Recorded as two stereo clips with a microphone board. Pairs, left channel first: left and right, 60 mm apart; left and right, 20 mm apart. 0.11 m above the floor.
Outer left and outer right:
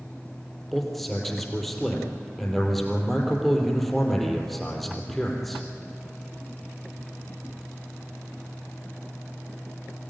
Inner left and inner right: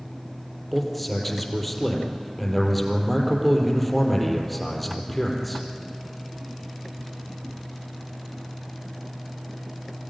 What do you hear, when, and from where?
0.7 s a man speaking: 5° left (ahead or behind), 3.5 m